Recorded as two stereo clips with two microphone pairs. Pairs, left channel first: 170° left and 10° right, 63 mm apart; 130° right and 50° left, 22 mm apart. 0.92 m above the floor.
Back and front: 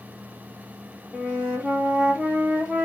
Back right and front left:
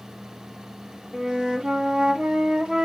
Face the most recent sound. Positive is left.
turn(degrees=60)